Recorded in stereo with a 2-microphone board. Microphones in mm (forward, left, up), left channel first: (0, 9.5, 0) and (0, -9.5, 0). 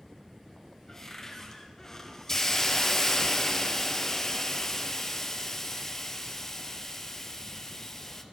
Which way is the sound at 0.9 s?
25° left (ahead or behind).